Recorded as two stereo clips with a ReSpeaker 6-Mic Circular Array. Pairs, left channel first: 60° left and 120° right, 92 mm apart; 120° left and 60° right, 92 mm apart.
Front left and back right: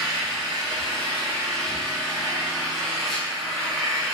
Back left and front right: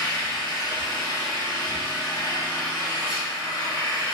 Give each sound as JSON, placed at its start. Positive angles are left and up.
{"t": 0.0, "sound": "an engine running", "azimuth_deg": 145, "distance_m": 1.4}